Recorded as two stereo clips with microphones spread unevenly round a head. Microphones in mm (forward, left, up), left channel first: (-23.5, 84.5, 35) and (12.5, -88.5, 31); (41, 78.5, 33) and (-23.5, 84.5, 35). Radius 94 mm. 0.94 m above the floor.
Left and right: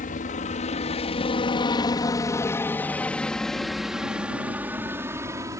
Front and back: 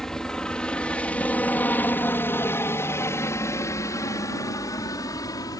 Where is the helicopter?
70° left; by 5.6 s 10° right.